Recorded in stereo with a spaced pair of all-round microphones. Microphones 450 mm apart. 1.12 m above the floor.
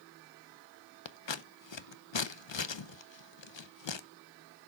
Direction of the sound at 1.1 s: 75° left (ahead or behind).